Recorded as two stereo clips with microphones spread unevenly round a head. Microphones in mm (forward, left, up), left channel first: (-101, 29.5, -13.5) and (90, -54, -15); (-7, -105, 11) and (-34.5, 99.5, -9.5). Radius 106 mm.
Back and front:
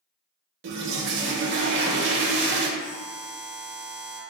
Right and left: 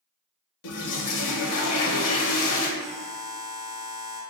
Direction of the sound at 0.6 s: 60° right.